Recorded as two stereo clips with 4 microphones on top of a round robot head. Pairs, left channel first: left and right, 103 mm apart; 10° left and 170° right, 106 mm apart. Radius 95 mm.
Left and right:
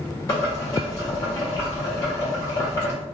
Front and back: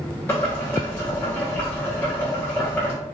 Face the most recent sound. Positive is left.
turn(degrees=60)